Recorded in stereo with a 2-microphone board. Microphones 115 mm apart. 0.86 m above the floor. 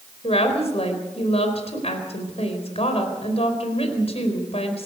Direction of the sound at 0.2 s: 65° left (ahead or behind).